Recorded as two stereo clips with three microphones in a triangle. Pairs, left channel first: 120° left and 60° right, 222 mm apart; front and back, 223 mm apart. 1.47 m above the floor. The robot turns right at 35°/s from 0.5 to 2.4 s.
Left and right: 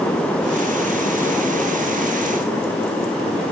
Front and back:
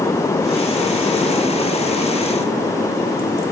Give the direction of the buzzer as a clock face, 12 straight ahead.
I don't hear a buzzer.